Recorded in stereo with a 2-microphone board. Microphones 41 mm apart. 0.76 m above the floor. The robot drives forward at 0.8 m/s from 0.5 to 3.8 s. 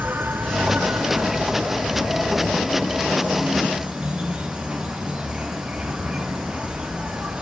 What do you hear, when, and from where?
0.0 s an insect: 65° right (ahead or behind), 1.3 m; by 7.4 s 25° right (ahead or behind), 3 m